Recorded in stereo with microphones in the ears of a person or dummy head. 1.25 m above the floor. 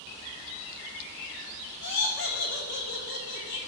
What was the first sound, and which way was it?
Laughter, 50° left (ahead or behind).